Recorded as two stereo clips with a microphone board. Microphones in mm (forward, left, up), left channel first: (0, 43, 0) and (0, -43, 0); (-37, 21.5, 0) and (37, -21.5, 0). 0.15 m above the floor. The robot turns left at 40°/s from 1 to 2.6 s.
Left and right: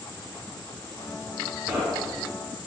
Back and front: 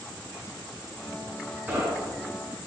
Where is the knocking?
15° right, 1.4 m; by 2.3 s 40° right, 1.4 m.